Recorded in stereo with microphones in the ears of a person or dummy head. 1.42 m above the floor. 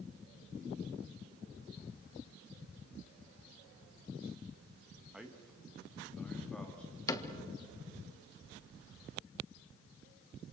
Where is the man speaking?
Centre (ahead or behind), 1.8 m; by 7.0 s 10° left (ahead or behind), 3 m.